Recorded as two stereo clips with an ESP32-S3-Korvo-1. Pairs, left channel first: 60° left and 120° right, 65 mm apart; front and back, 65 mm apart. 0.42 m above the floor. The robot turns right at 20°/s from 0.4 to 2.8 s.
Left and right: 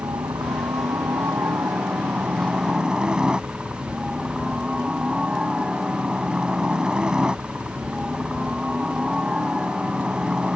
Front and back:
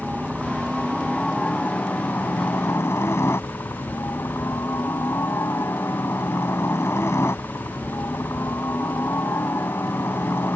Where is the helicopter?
90° right; by 10.6 s 45° right.